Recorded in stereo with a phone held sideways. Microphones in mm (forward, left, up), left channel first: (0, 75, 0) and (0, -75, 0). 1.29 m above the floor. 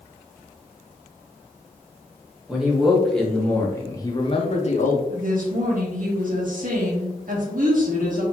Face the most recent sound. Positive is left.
turn(degrees=-65)  # may be behind; listen again after turning